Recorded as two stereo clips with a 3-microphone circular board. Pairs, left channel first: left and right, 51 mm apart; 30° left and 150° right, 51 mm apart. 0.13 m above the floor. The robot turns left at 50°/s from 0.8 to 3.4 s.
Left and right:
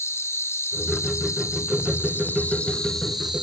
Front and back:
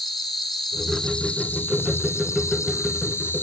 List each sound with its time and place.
0.0 s an insect: 125° left, 1.4 m; by 3.4 s 5° right, 1.4 m